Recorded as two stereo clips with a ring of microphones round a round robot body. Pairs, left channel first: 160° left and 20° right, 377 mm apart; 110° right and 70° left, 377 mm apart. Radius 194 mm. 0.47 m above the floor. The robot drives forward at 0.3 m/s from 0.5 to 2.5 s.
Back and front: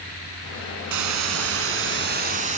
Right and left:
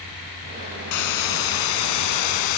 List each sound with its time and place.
0.9 s a hiss: 70° right, 1.1 m; by 2.6 s 95° right, 1.0 m